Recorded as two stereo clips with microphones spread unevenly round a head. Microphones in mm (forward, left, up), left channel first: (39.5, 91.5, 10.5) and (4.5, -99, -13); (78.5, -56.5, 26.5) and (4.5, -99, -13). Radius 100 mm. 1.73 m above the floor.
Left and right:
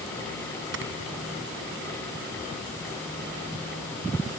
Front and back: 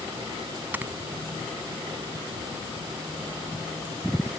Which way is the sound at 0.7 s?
70° right.